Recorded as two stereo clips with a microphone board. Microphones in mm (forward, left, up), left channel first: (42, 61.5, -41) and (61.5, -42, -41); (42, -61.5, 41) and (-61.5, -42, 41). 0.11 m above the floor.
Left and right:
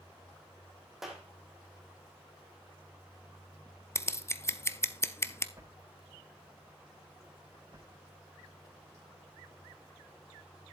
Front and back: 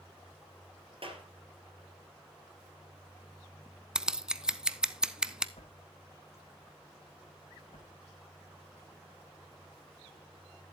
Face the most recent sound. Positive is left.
turn(degrees=-25)